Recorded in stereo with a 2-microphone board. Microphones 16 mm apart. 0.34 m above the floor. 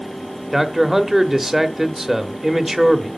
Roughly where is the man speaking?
Centre.